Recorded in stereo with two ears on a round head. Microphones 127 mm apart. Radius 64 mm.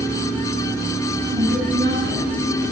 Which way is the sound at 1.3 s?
75° right (ahead or behind).